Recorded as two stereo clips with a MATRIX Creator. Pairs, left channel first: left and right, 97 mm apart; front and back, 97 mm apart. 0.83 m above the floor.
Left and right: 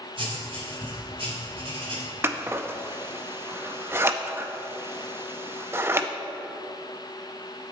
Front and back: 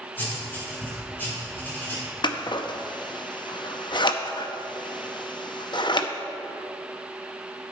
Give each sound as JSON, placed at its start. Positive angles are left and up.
{"t": 0.2, "sound": "writing", "azimuth_deg": -70, "distance_m": 3.5}
{"t": 2.2, "sound": "scissors", "azimuth_deg": -30, "distance_m": 0.6}